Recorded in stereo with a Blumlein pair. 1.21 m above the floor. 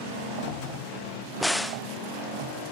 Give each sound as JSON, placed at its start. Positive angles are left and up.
{"t": 1.4, "sound": "a crack", "azimuth_deg": 0}